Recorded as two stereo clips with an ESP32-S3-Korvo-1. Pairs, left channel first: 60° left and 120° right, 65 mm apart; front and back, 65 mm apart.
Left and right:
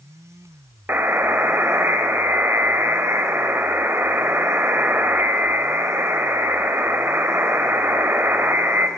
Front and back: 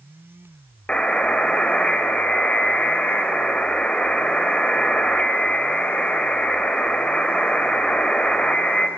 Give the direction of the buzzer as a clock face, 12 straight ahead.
2 o'clock.